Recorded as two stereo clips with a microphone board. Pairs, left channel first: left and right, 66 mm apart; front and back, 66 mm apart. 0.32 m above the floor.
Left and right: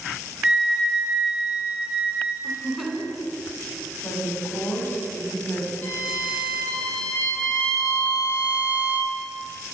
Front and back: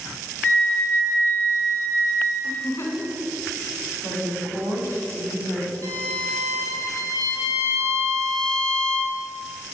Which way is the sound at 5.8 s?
150° left.